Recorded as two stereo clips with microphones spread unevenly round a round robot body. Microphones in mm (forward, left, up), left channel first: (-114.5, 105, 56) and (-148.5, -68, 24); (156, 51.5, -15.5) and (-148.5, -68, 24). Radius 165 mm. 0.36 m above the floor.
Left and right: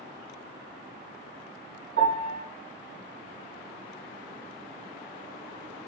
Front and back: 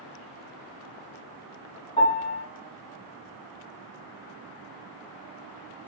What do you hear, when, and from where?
2.0 s a piano: 50° right, 0.9 m